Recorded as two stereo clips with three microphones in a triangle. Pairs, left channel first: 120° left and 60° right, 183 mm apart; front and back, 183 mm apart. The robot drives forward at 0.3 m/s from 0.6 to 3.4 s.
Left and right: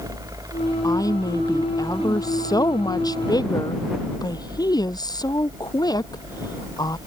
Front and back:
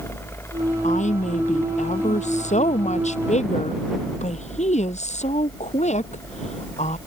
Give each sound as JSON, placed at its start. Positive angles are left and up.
{"t": 0.8, "sound": "a woman speaking", "azimuth_deg": 50}